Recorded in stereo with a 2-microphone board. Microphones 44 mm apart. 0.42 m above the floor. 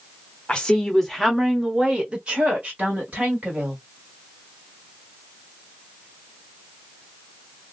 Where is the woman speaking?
20° left (ahead or behind), 1.0 m; by 3.8 s 45° right (ahead or behind), 1.9 m.